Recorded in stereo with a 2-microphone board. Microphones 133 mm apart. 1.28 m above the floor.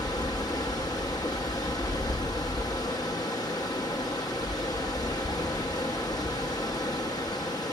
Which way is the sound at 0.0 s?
30° left (ahead or behind).